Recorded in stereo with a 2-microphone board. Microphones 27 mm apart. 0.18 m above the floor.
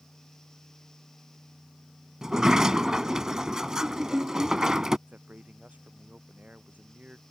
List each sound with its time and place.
2.2 s a sliding door: 20° right (ahead or behind)
5.1 s a man speaking: 70° right (ahead or behind)